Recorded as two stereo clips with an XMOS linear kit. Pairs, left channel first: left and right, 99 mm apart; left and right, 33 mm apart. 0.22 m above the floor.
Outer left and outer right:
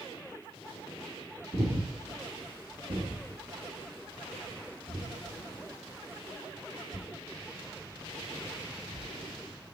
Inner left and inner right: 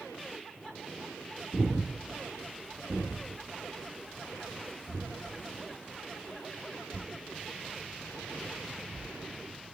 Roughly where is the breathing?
Right.